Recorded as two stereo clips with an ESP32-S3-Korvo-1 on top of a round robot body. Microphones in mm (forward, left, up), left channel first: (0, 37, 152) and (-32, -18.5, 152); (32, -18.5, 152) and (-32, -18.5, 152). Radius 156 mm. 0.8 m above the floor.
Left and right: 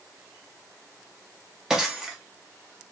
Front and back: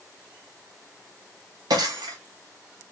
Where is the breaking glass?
155° left, 0.5 m.